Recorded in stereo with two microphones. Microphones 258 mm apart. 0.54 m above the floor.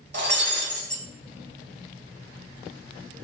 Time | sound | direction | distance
0.1 | breaking glass | 45° right (ahead or behind) | 1.0 m